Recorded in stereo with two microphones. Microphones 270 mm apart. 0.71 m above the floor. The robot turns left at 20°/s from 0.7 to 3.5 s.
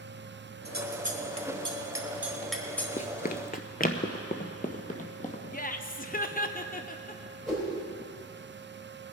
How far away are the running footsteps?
About 0.7 m.